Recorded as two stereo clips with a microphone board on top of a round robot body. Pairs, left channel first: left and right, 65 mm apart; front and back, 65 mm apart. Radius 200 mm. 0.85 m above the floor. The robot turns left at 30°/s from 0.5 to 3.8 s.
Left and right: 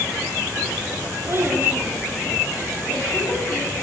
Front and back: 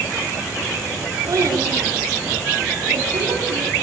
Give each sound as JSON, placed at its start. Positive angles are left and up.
{"t": 1.3, "sound": "a child speaking", "azimuth_deg": -140, "distance_m": 5.5}